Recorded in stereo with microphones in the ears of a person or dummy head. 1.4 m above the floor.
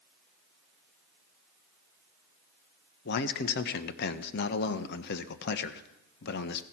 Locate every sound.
3.0 s a man speaking: 55° left (ahead or behind), 1.0 m